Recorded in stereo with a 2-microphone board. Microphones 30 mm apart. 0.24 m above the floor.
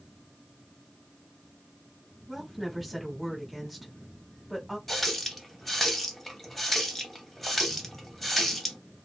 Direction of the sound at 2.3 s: Centre (ahead or behind).